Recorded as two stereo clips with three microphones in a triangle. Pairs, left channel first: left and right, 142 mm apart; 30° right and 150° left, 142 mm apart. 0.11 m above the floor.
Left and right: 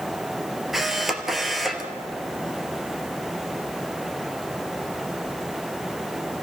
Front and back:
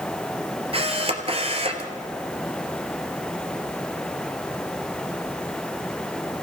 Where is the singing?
No singing in this recording.